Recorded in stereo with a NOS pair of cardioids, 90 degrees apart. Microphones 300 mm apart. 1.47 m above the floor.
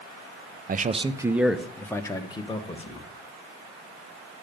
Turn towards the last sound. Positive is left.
turn(degrees=20)